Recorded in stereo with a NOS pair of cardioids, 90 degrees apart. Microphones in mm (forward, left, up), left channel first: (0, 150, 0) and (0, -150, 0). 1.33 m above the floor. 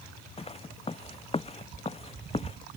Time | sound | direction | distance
0.4 | footsteps | 20° left | ?